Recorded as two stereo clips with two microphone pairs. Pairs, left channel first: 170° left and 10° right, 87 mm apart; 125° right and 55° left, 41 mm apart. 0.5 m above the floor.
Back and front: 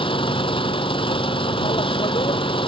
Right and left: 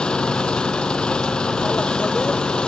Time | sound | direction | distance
0.0 | an engine running | 170° left | ?